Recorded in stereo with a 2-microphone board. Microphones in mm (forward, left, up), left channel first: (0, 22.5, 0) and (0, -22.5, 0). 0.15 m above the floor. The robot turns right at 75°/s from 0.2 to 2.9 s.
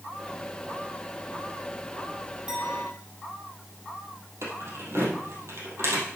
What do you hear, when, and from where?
2.5 s a clink: 160° right, 4.5 m; by 2.9 s 130° right, 4.5 m
4.4 s keys jangling: 75° right (ahead or behind), 3 m